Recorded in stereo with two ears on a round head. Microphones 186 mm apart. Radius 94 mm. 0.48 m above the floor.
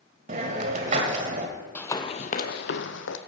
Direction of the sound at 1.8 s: 10° left (ahead or behind).